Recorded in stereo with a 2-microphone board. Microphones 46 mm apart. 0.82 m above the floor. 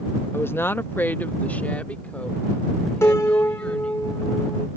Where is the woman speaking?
50° left (ahead or behind); by 4.0 s 25° left (ahead or behind).